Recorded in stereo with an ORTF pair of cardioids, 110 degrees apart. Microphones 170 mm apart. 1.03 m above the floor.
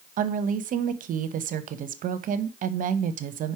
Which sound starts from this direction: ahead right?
A woman speaking, at 0.2 s.